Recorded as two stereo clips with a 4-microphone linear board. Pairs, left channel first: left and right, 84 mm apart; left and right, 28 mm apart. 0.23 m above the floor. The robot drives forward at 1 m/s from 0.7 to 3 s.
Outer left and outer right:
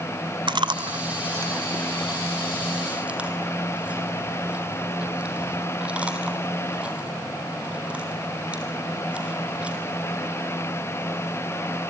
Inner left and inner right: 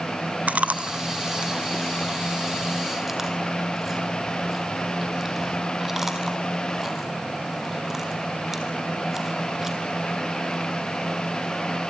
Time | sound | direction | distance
0.5 | chewing | 65° right (ahead or behind) | 0.6 m